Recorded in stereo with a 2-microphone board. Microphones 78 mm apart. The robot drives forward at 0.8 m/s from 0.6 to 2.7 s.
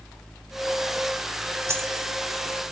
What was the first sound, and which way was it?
A dropped coin, 35° right (ahead or behind).